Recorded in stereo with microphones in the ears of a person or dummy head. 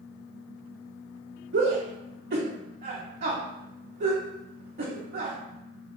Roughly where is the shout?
Right.